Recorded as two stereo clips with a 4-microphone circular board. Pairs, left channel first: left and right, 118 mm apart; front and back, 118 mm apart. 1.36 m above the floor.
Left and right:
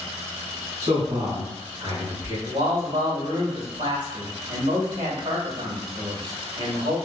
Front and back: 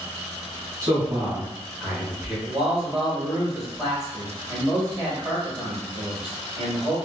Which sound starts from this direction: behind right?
A man speaking, at 0.8 s.